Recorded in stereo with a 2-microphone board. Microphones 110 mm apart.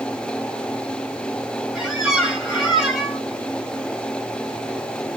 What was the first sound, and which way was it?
A squeak, 10° right (ahead or behind).